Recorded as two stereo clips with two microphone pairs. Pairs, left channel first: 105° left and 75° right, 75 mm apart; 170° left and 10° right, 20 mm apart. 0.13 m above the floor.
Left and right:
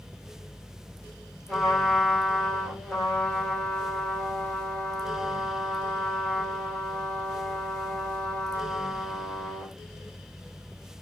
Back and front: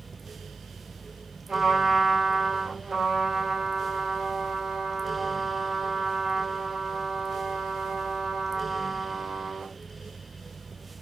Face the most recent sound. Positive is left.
turn(degrees=20)